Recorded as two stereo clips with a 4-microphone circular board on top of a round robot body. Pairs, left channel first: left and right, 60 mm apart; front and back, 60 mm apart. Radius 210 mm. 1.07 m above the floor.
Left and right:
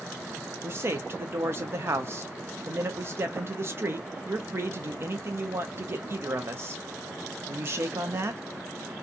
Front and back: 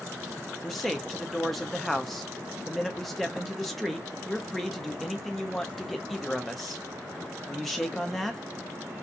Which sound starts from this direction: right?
A man speaking, at 0.6 s.